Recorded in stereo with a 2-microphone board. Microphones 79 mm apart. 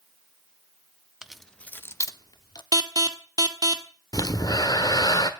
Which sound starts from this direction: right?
An alarm, at 2.7 s.